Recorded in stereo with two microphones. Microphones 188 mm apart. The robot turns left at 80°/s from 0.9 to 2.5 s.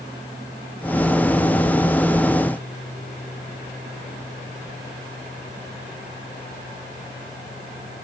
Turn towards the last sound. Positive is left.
No sound to turn to.